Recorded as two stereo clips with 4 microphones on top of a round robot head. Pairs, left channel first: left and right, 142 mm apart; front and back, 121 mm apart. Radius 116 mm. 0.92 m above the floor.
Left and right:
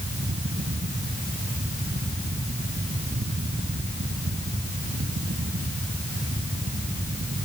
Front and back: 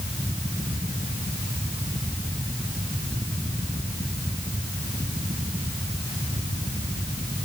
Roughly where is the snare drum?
No snare drum in this recording.